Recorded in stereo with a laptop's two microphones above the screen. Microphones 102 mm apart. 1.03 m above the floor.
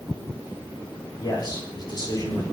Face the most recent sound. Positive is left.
turn(degrees=45)  # may be behind; listen again after turning